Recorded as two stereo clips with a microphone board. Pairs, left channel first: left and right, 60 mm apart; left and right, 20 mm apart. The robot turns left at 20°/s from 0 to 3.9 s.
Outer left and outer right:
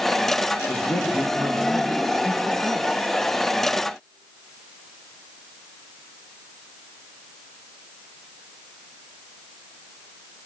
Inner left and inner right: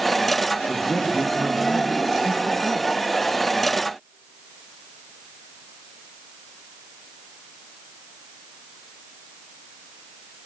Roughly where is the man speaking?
Ahead left.